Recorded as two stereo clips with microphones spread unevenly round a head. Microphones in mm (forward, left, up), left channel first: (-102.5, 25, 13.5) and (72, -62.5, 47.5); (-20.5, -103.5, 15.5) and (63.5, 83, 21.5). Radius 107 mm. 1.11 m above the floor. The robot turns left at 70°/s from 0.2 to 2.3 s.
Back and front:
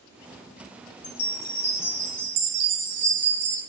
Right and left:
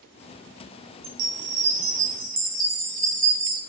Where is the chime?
100° left, 1.0 m; by 3.6 s 15° left, 1.0 m.